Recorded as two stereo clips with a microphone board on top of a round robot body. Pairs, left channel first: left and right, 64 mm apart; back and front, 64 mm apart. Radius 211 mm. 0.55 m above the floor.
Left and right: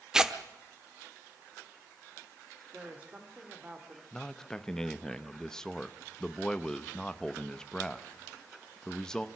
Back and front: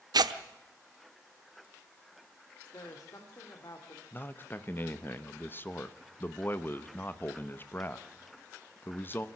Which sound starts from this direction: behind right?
A woman speaking, at 2.7 s.